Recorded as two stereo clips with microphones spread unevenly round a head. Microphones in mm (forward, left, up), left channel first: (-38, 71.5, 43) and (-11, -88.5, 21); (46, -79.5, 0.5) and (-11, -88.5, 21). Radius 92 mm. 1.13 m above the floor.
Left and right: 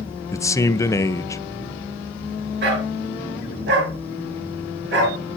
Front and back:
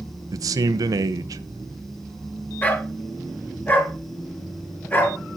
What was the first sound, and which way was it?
A man speaking, 175° left.